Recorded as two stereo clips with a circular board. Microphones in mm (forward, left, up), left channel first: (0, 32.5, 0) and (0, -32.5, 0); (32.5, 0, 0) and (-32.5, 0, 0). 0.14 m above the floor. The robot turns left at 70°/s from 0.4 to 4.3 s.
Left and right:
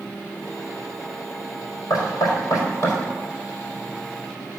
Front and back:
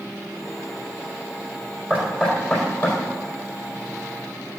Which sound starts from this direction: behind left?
Knocking, at 1.9 s.